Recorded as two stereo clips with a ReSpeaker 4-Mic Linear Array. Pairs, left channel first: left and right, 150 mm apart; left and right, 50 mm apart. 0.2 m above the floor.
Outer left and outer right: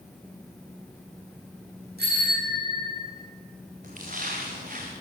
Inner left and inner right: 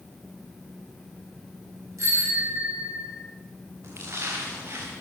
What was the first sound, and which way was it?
A bicycle bell, 85° right.